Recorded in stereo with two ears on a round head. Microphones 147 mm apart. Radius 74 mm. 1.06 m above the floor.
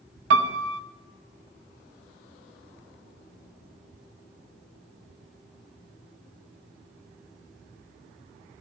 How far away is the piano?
About 0.7 m.